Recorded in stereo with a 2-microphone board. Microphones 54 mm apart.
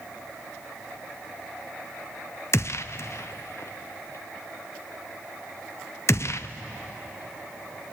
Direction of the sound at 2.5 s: 55° left (ahead or behind).